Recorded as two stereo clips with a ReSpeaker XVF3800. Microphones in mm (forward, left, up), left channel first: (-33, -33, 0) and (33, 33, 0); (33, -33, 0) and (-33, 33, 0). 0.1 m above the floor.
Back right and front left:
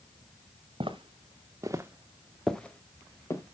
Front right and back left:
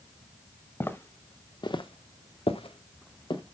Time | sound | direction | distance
0.8 | footsteps | 25° left | 1.6 m